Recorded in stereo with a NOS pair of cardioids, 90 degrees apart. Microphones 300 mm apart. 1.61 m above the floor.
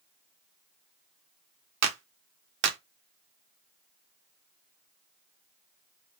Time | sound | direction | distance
1.8 | a clap | 60° right | 1.2 m